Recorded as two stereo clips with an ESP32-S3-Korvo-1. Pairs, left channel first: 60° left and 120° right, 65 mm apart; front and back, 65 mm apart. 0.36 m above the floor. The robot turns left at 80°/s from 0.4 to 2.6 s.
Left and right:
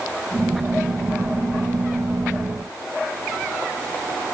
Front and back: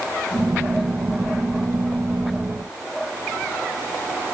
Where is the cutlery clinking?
I don't hear cutlery clinking.